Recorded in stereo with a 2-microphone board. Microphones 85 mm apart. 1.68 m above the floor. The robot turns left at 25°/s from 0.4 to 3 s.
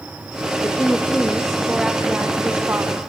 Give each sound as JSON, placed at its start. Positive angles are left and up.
{"t": 0.6, "sound": "a woman speaking", "azimuth_deg": 25, "distance_m": 0.6}